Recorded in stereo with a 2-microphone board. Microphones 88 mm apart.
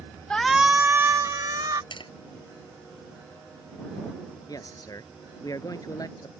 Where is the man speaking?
45° left (ahead or behind).